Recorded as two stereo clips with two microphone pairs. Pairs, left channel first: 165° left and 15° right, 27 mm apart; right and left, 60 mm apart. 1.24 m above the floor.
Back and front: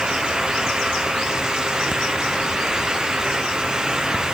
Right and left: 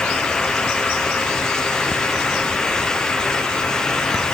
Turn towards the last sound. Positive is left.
No sound to turn to.